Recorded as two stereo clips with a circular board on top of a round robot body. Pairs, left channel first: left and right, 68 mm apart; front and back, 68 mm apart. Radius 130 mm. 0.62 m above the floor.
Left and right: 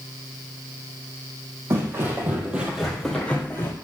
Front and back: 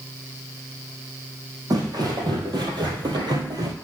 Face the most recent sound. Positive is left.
turn(degrees=145)